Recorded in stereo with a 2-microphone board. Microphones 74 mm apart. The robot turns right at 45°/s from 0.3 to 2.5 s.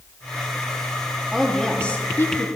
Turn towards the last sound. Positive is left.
turn(degrees=45)